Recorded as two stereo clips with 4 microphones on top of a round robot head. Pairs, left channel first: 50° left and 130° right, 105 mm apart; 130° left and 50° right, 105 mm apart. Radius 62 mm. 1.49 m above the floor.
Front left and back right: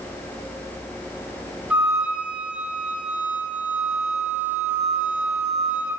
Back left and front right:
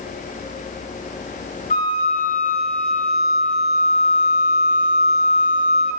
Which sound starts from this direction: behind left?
A flute, at 1.7 s.